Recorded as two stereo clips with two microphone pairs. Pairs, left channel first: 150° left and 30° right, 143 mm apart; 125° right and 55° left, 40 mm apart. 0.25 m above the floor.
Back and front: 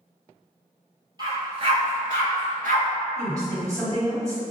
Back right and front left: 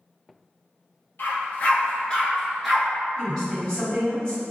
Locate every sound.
1.2 s a dog barking: 90° right, 1.0 m; by 2.9 s 25° right, 0.9 m
3.2 s a woman speaking: 75° right, 1.7 m